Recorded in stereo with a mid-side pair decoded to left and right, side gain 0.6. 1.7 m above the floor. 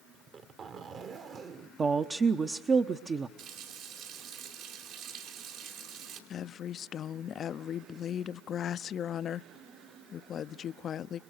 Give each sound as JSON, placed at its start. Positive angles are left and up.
{"t": 0.1, "sound": "a zipper", "azimuth_deg": -45, "distance_m": 1.7}
{"t": 1.8, "sound": "a woman speaking", "azimuth_deg": -30, "distance_m": 1.0}
{"t": 3.4, "sound": "a running tap", "azimuth_deg": -70, "distance_m": 4.5}
{"t": 6.3, "sound": "a woman speaking", "azimuth_deg": 45, "distance_m": 0.6}